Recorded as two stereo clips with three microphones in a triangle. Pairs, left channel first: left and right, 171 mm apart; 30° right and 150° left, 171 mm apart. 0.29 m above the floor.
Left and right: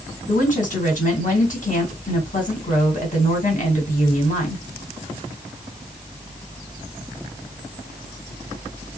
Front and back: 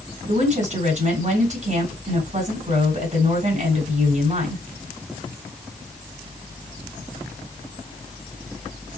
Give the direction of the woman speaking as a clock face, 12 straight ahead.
8 o'clock.